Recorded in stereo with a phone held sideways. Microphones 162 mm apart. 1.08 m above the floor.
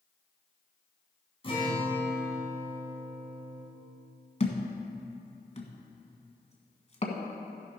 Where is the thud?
40° left (ahead or behind), 1.5 m.